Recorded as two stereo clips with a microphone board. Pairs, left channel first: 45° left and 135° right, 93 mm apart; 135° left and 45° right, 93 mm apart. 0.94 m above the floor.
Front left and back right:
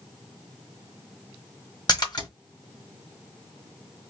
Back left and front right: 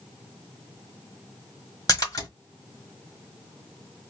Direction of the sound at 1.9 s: 85° left.